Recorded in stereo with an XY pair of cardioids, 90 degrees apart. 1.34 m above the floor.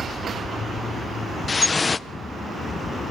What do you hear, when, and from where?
1.5 s dripping: 35° left, 0.6 m